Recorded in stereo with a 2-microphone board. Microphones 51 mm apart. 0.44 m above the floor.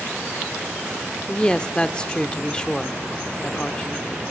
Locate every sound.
1.3 s a woman speaking: 20° left (ahead or behind), 0.7 m